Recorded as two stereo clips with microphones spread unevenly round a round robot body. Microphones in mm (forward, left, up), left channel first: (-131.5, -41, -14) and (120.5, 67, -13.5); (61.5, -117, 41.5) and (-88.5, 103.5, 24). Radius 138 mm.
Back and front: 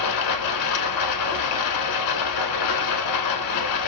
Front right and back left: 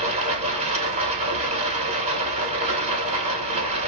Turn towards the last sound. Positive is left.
turn(degrees=-165)